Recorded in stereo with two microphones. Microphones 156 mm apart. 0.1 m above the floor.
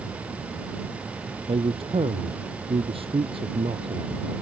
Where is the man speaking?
35° right (ahead or behind).